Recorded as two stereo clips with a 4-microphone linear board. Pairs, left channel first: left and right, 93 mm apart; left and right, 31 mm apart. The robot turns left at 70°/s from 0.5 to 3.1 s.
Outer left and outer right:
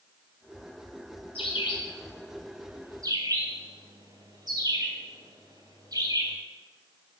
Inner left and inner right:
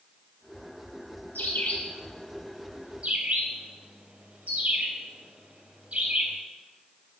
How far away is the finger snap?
No finger snap in this recording.